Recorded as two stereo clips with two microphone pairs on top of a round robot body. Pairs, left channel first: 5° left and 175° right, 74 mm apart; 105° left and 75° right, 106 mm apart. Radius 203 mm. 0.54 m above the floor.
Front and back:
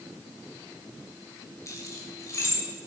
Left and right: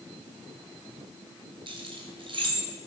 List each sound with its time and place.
1.7 s keys jangling: 40° right, 3 m